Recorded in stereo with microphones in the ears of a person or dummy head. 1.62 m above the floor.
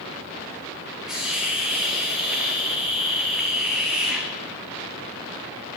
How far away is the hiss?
About 0.9 m.